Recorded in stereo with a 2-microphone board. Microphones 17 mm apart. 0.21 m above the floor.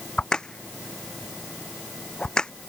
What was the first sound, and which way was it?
A crack, 50° left (ahead or behind).